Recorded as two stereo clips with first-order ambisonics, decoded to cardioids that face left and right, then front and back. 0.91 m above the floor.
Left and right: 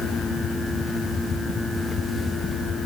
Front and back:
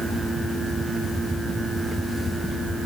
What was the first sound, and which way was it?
Only background noise.